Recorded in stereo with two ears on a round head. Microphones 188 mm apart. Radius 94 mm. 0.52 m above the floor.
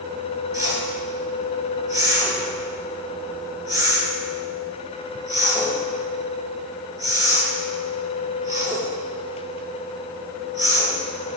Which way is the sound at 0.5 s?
15° right (ahead or behind).